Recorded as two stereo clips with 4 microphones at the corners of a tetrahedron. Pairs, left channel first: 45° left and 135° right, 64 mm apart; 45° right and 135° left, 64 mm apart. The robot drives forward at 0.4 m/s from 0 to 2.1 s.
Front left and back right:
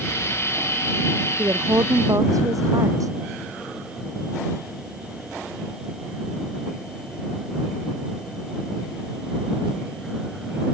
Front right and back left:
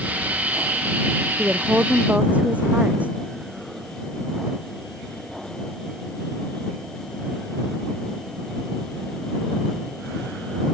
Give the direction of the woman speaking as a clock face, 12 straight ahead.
5 o'clock.